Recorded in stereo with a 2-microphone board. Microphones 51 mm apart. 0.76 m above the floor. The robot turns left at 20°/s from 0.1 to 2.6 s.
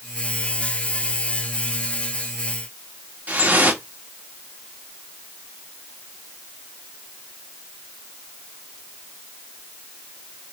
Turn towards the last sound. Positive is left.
turn(degrees=-35)  # may be behind; listen again after turning